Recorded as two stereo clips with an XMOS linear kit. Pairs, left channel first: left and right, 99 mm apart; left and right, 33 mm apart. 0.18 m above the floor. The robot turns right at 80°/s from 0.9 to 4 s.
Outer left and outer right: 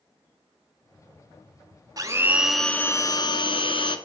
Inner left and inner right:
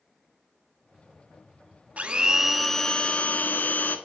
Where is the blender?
45° right, 0.5 m; by 4.0 s 115° left, 0.5 m.